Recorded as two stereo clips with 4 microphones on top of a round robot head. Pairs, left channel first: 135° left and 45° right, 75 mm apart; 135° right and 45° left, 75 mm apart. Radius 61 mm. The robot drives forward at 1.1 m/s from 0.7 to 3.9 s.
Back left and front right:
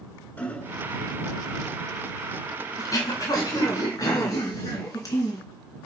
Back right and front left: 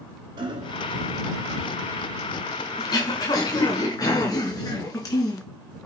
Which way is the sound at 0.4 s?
65° left.